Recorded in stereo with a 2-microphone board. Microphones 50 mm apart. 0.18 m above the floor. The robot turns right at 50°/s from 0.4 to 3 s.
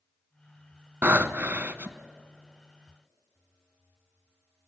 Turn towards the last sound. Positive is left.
turn(degrees=-10)